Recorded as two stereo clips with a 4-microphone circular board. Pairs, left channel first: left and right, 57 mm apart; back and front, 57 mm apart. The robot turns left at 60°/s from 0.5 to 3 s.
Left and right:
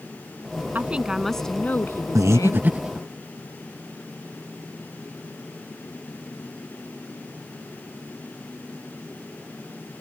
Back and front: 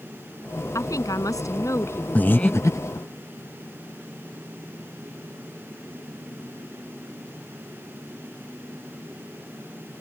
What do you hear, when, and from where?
0.8 s a woman speaking: 150° right; by 2.7 s 95° left
2.1 s breathing: 115° right; by 3.1 s 170° right